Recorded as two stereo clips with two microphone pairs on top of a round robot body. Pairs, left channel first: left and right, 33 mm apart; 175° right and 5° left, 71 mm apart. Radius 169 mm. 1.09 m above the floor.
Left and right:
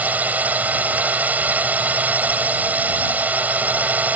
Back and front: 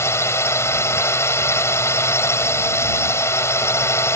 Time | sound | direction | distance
0.0 | a drone | 125° right | ?